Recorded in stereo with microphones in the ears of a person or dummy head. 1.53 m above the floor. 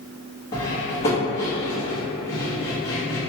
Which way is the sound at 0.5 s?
25° left (ahead or behind).